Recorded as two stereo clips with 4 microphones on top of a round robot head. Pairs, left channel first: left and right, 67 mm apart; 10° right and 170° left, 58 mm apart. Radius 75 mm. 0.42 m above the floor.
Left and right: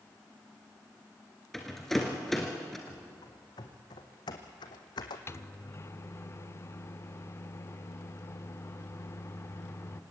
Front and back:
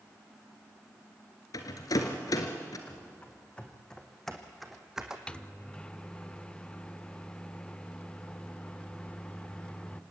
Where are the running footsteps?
55° left, 2.5 m; by 5.2 s 90° left, 1.8 m.